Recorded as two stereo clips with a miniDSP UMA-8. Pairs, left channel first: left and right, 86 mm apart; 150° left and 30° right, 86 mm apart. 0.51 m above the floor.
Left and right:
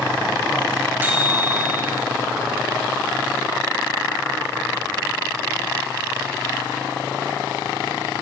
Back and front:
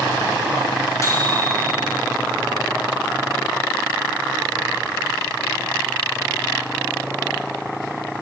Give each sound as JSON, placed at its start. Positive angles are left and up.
{"t": 1.0, "sound": "a microwave", "azimuth_deg": -160, "distance_m": 2.0}